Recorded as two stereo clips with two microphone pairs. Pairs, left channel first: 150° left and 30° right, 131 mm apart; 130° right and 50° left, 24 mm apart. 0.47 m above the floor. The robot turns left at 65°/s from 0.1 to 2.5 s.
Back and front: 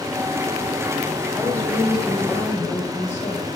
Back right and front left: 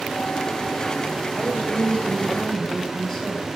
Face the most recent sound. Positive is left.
turn(degrees=165)